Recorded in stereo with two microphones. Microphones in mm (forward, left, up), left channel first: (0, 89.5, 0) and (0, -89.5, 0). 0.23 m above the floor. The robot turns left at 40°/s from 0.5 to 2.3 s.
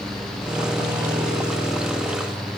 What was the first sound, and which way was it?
Only background noise.